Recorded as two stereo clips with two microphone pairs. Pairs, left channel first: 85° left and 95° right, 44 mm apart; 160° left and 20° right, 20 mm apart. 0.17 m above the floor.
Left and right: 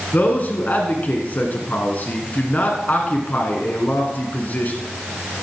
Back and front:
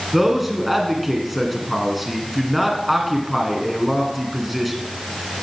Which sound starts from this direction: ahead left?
A man speaking, at 0.1 s.